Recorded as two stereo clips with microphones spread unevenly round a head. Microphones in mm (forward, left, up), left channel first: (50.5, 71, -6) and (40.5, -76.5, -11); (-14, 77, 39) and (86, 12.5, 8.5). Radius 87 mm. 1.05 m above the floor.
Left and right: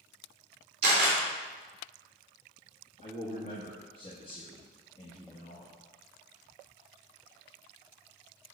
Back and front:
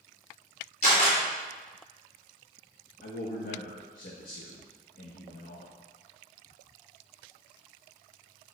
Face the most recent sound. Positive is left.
turn(degrees=145)